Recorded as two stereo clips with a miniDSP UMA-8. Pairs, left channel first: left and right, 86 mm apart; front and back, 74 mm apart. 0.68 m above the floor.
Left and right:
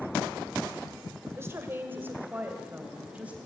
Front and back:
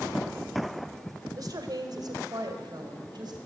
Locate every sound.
1.4 s a woman speaking: 150° right, 2.5 m; by 3.4 s 165° right, 3.5 m